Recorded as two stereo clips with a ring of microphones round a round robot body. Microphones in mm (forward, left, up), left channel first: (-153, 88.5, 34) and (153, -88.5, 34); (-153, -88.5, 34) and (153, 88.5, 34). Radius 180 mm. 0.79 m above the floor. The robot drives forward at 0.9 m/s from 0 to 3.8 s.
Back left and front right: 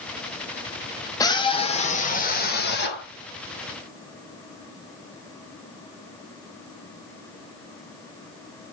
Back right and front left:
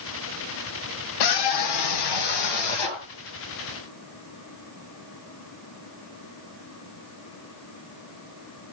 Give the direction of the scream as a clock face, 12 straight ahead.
4 o'clock.